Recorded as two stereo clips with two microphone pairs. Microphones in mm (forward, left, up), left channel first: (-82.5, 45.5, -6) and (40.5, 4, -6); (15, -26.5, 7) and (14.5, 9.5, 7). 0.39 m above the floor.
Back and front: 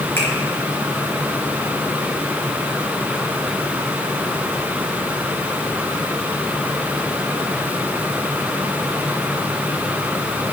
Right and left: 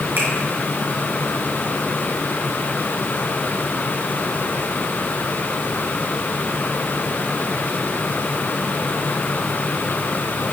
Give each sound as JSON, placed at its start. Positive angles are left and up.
{"t": 0.2, "sound": "a finger snap", "azimuth_deg": 90, "distance_m": 4.0}